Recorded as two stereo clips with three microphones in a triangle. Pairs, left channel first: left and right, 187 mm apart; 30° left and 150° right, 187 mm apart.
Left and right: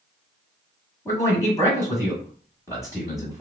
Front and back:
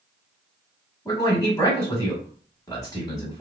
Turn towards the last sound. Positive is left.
turn(degrees=55)